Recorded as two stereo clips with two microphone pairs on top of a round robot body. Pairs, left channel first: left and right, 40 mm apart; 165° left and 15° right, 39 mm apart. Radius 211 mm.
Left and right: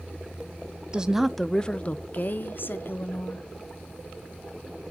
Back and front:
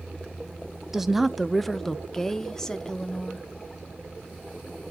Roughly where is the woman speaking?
Right.